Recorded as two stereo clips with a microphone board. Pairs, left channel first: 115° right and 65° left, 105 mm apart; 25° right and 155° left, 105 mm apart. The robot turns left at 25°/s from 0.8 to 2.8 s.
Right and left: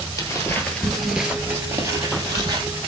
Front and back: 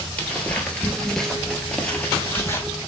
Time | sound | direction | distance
0.2 | footsteps | 85° right | 1.4 m